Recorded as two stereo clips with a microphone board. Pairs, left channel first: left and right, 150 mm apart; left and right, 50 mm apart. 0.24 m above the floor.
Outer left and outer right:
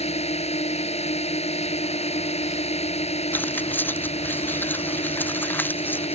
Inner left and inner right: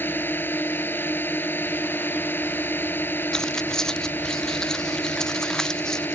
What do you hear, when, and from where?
0.0 s a drone: 45° left (ahead or behind)
3.3 s keys jangling: 10° left (ahead or behind)